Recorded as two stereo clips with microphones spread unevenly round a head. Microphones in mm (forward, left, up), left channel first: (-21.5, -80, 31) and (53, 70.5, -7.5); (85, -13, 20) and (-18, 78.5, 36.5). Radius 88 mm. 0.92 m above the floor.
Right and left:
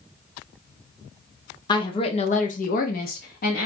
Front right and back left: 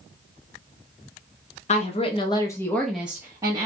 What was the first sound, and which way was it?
A woman speaking, 45° right.